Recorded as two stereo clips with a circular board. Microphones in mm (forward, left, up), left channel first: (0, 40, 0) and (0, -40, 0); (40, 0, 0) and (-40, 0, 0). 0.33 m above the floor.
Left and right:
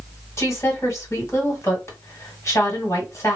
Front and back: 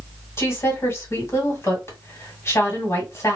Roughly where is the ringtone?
No ringtone in this recording.